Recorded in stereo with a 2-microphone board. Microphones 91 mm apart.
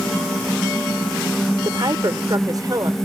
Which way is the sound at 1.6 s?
50° right (ahead or behind).